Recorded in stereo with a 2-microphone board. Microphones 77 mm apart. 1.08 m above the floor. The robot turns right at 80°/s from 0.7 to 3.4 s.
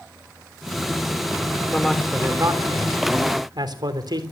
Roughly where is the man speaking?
Left.